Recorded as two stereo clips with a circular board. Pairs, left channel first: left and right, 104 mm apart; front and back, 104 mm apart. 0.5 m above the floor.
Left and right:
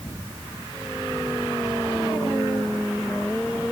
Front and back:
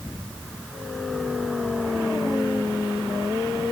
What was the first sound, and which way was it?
Only background noise.